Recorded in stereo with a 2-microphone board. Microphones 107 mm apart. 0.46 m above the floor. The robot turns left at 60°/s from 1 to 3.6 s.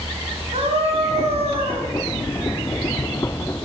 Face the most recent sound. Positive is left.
turn(degrees=130)